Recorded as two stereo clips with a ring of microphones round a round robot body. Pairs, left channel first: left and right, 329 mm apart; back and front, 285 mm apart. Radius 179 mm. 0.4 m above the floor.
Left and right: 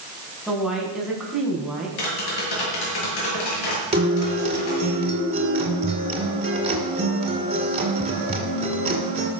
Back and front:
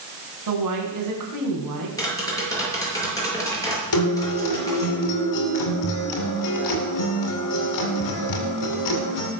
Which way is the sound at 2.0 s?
100° left.